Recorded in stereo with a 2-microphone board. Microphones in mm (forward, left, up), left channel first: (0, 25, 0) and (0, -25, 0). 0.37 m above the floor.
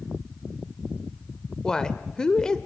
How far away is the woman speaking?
About 0.9 m.